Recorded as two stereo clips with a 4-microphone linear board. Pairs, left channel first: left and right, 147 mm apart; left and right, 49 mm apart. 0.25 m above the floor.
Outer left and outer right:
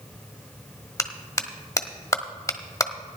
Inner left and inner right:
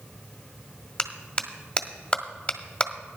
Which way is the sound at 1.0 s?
25° left (ahead or behind).